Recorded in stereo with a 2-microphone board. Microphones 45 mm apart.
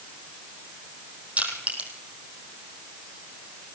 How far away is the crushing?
About 4 m.